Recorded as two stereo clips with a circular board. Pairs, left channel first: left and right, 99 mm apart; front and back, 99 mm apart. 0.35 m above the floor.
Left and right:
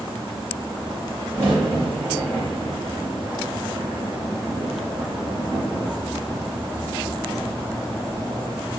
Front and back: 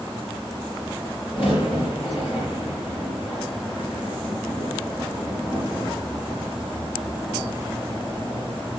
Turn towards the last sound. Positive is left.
turn(degrees=-25)